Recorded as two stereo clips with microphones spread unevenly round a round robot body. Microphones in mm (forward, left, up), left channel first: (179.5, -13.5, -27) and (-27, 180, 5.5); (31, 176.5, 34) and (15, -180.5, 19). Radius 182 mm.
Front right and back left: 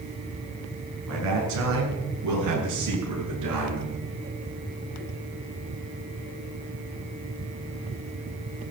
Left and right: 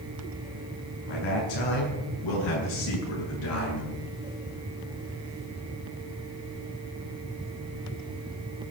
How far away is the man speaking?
About 8.5 m.